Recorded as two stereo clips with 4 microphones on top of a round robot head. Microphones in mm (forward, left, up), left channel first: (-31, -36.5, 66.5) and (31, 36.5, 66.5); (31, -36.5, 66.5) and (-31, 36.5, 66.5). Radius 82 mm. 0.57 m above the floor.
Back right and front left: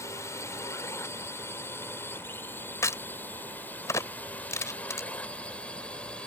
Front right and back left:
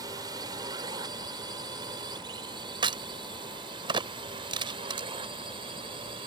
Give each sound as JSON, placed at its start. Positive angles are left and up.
{"t": 0.0, "sound": "a drone", "azimuth_deg": 175}
{"t": 2.8, "sound": "a crack", "azimuth_deg": 170}